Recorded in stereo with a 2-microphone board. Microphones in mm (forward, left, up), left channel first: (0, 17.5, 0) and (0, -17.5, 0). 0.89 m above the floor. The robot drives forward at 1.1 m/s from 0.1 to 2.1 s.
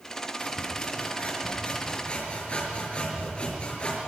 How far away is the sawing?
About 5.5 m.